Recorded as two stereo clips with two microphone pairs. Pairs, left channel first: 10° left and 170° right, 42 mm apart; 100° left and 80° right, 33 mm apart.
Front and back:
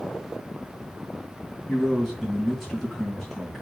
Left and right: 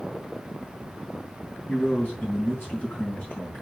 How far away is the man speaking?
About 3.5 m.